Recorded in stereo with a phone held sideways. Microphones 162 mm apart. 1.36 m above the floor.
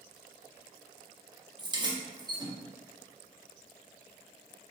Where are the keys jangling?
25° right (ahead or behind), 0.5 m.